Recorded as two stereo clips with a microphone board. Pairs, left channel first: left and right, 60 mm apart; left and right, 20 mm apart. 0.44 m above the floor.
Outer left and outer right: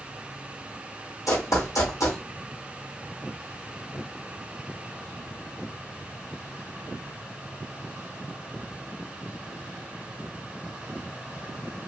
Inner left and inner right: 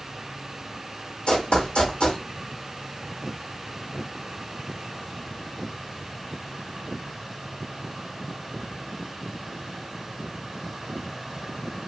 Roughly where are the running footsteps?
Left.